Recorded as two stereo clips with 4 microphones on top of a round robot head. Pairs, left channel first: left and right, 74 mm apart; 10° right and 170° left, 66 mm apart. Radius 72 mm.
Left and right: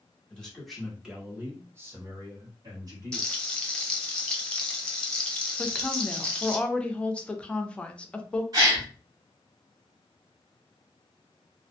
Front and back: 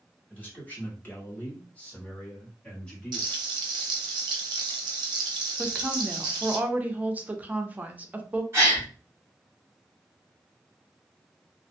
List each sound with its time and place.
0.3 s a man speaking: 25° left, 1.0 m; by 3.3 s 80° right, 1.7 m
3.1 s frying: 170° left, 0.7 m
5.6 s a woman speaking: 145° left, 0.5 m
8.5 s a gasp: 125° right, 1.2 m